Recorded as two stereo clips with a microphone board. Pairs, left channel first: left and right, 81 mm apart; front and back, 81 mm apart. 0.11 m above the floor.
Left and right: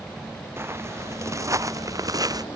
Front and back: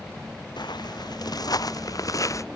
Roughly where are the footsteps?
Ahead right.